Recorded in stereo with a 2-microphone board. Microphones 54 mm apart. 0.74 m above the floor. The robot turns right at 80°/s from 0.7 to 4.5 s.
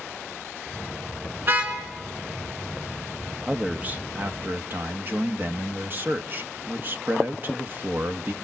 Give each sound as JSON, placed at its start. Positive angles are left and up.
{"t": 1.4, "sound": "a car horn", "side_deg": -40, "distance_m": 5.0}
{"t": 3.5, "sound": "a man speaking", "azimuth_deg": -160, "distance_m": 1.0}